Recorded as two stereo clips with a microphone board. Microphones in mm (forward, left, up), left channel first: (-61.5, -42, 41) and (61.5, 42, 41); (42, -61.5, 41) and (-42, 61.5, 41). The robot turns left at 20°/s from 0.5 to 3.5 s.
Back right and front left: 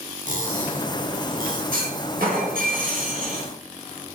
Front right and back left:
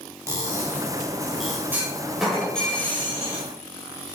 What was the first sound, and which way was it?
Cutlery clinking, 55° left.